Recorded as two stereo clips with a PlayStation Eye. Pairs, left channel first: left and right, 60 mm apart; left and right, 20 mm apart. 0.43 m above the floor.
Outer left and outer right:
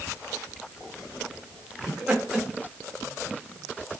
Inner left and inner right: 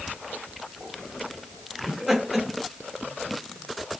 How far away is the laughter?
About 1.1 m.